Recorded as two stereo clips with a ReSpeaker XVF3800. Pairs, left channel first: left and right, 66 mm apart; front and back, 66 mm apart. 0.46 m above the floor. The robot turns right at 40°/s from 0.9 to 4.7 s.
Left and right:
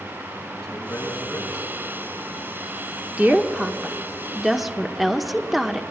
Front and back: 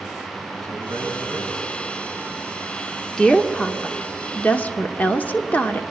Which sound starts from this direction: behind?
A man speaking, at 0.6 s.